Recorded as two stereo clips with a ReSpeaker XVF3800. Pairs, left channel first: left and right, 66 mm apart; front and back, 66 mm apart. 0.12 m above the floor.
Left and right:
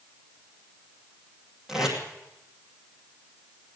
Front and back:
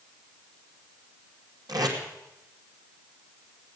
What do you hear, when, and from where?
1.7 s tape being pulled: 170° right, 2.5 m